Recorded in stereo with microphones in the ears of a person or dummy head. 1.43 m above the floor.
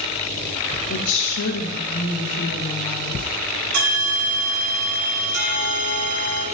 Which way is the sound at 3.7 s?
85° right.